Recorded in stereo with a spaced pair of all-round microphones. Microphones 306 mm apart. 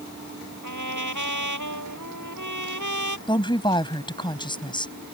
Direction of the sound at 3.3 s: 15° left (ahead or behind).